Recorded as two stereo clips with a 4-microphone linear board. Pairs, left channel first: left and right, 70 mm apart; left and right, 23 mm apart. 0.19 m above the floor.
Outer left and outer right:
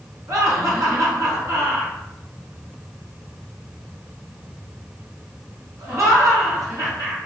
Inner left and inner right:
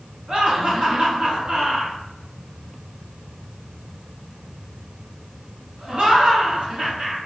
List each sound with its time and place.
0.3 s laughter: 50° right (ahead or behind), 1.8 m